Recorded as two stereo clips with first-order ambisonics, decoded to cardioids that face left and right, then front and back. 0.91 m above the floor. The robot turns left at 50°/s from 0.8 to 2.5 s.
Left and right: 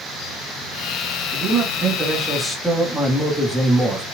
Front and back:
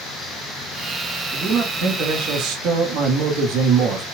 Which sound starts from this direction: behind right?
A man speaking, at 1.3 s.